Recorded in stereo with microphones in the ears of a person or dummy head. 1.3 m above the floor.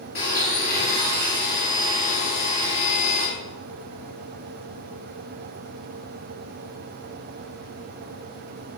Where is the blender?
50° left (ahead or behind), 1.8 m.